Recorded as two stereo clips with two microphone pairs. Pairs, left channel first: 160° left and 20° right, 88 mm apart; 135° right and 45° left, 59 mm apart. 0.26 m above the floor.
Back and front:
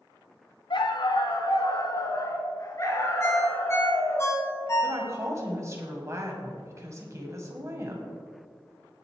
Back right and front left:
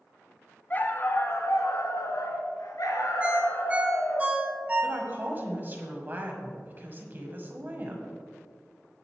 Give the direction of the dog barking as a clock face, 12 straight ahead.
6 o'clock.